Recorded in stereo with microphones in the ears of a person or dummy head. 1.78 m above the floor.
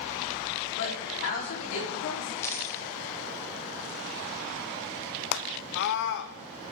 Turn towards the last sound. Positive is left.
turn(degrees=65)  # may be behind; listen again after turning